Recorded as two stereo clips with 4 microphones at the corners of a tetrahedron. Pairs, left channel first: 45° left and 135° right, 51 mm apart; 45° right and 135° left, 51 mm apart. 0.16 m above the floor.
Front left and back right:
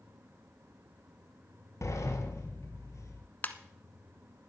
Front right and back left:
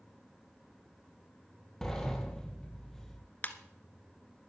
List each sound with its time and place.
1.8 s a sliding door: 35° left, 1.5 m
3.4 s a ringtone: straight ahead, 0.8 m